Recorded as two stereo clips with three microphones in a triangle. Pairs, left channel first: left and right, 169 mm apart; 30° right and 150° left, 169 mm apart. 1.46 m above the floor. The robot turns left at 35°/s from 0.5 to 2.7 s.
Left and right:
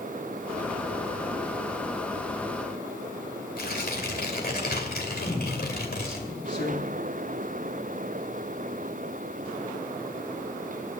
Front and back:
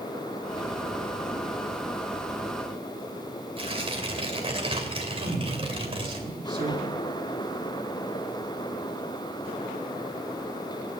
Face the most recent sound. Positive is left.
turn(degrees=85)